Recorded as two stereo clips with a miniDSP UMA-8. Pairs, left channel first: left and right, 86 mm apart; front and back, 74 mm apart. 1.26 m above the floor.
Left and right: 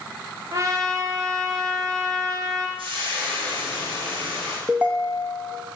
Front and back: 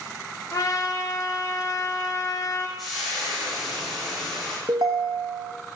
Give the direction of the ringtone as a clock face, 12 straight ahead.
5 o'clock.